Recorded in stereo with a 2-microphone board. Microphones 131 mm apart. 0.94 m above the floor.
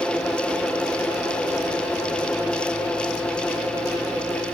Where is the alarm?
I don't hear an alarm.